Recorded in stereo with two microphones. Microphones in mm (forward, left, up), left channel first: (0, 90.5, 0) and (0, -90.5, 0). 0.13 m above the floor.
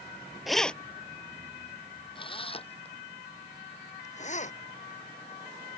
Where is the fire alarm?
No fire alarm in this recording.